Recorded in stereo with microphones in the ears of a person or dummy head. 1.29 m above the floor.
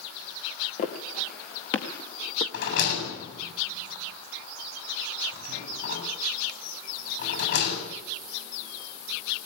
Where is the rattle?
65° left (ahead or behind), 8 m.